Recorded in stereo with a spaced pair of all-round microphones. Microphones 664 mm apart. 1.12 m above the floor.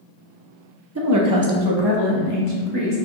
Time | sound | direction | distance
0.9 | a woman speaking | 25° right (ahead or behind) | 0.5 m